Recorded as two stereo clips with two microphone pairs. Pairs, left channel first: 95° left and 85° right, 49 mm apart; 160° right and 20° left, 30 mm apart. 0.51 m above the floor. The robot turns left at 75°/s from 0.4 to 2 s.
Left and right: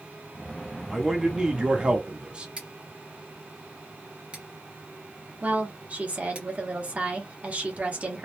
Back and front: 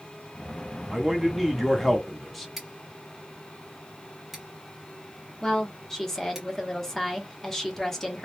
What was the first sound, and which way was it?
A man speaking, 10° left.